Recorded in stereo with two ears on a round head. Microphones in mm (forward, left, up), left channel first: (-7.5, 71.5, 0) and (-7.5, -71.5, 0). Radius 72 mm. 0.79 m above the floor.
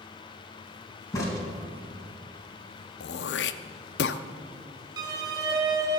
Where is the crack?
25° left (ahead or behind), 3 m.